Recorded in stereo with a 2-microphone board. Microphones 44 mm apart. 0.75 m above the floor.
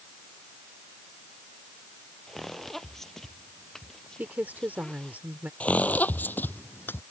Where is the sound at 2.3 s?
5° left (ahead or behind); by 5.2 s 20° left (ahead or behind).